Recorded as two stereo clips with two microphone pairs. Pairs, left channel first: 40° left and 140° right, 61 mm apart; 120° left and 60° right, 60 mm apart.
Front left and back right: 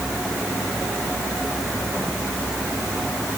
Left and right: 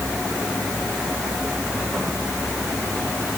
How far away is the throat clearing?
No throat clearing in this recording.